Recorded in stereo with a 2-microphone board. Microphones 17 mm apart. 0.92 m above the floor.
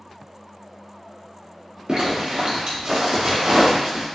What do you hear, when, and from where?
1.9 s a zipper: 50° right (ahead or behind), 0.9 m